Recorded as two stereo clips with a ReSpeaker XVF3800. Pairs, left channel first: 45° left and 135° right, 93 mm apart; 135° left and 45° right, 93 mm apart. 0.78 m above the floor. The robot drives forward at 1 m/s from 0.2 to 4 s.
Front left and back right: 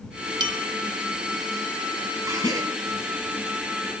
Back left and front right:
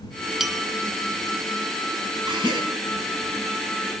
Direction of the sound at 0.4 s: 130° right.